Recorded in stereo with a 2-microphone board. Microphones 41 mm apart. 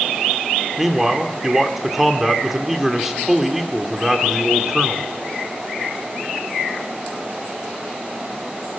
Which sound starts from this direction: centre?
A man speaking, at 0.8 s.